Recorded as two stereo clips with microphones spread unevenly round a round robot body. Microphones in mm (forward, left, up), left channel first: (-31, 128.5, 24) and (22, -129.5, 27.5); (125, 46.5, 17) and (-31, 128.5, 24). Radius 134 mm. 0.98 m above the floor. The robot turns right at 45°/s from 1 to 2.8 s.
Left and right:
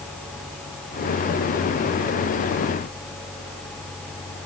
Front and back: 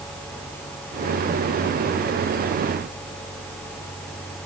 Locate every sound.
Only background noise.